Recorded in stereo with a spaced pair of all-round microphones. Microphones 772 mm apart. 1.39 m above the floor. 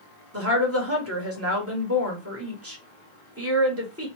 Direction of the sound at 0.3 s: 20° right (ahead or behind).